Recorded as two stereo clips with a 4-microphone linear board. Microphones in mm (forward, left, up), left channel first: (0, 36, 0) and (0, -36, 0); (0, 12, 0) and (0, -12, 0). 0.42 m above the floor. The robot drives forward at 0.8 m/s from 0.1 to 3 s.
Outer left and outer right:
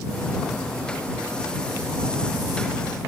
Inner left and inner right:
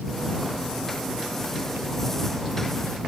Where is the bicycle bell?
No bicycle bell in this recording.